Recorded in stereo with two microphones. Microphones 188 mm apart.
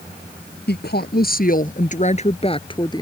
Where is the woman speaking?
60° left (ahead or behind); by 3.0 s 20° left (ahead or behind).